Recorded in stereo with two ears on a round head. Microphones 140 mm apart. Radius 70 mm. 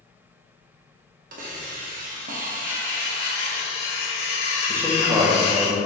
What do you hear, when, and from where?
1.3 s a hiss: 55° right (ahead or behind), 0.8 m
2.6 s cutlery clinking: 70° left (ahead or behind), 1.9 m
4.7 s a man speaking: 15° right (ahead or behind), 0.9 m